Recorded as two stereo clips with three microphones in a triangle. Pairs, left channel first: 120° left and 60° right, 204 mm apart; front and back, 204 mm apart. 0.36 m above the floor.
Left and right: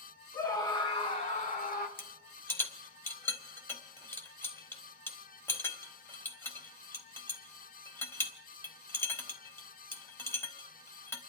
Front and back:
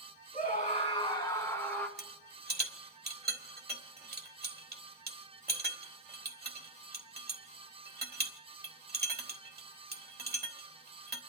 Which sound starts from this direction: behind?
A rattle, at 2.0 s.